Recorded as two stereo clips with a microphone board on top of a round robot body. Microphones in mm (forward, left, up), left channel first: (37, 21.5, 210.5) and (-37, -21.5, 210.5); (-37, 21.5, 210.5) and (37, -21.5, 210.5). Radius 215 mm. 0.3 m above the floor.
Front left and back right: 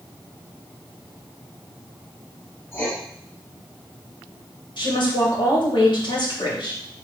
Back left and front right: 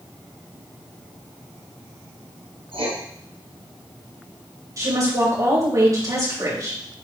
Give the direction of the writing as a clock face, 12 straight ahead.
1 o'clock.